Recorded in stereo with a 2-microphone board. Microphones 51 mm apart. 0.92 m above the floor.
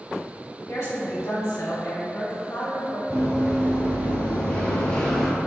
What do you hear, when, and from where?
0.7 s a woman speaking: 70° left (ahead or behind), 1.9 m
3.1 s running footsteps: 40° left (ahead or behind), 1.7 m; by 5.3 s 10° left (ahead or behind), 0.9 m